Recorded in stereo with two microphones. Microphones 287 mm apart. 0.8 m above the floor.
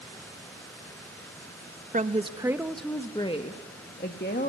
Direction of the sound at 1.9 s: 25° right (ahead or behind).